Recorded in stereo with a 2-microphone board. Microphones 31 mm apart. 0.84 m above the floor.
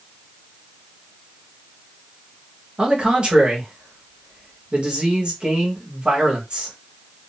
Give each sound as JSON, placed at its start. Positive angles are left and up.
{"t": 2.8, "sound": "a man speaking", "side_deg": -35, "distance_m": 1.4}